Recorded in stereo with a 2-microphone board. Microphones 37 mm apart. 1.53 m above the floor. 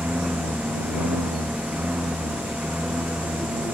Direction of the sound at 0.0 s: 40° right (ahead or behind).